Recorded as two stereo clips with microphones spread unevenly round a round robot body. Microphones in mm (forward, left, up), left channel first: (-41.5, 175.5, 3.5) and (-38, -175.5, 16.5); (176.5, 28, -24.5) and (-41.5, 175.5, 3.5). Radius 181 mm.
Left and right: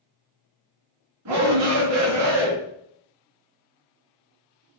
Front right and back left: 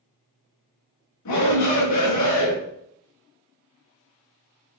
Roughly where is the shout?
Ahead right.